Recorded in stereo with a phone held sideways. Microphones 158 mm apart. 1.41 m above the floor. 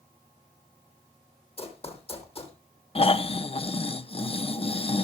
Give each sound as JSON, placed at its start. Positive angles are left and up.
{"t": 1.6, "sound": "running footsteps", "side_deg": 35, "distance_m": 3.0}
{"t": 3.0, "sound": "snoring", "side_deg": 35, "distance_m": 0.8}